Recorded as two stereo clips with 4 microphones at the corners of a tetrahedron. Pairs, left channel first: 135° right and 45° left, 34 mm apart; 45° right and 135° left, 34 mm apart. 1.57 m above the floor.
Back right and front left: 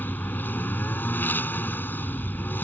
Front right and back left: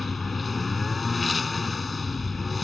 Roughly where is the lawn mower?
Behind right.